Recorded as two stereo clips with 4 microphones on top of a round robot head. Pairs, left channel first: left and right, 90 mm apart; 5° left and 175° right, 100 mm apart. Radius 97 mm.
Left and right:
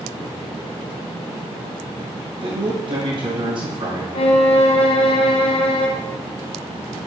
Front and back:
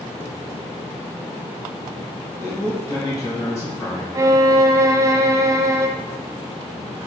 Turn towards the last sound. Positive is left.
turn(degrees=120)